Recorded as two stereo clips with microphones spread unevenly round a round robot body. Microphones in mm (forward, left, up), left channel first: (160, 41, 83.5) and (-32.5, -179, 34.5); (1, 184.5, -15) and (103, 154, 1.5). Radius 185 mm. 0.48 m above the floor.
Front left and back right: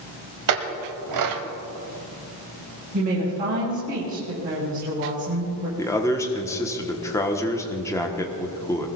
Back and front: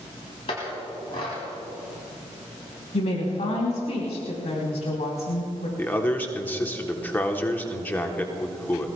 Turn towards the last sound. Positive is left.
turn(degrees=140)